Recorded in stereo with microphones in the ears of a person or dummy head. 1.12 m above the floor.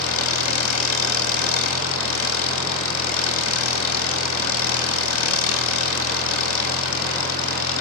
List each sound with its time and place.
0.0 s an engine running: 75° left (ahead or behind), 4 m